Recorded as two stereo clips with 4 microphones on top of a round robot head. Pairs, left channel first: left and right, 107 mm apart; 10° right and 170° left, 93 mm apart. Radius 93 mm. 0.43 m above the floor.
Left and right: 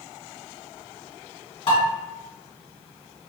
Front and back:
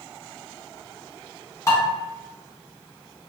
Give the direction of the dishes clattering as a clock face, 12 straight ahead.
11 o'clock.